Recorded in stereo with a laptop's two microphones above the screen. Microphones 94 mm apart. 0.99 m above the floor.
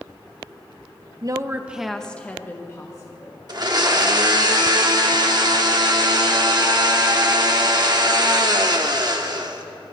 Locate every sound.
1.2 s a woman speaking: 40° right (ahead or behind), 0.5 m; by 3.4 s 40° left (ahead or behind), 1.4 m
3.5 s a blender: 45° right (ahead or behind), 1.0 m